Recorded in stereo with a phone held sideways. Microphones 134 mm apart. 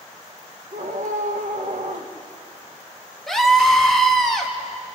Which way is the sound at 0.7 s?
65° right (ahead or behind).